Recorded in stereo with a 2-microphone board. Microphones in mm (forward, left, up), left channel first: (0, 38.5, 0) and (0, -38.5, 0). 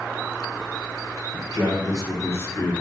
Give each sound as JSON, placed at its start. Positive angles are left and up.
{"t": 1.3, "sound": "a man speaking", "side_deg": 60, "distance_m": 2.0}